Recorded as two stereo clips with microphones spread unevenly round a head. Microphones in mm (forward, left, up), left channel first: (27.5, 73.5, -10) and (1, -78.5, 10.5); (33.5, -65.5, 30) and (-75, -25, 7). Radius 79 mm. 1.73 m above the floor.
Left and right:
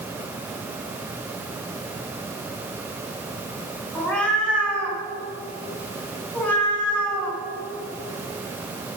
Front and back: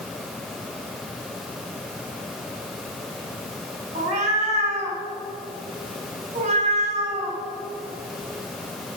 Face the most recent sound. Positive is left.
turn(degrees=170)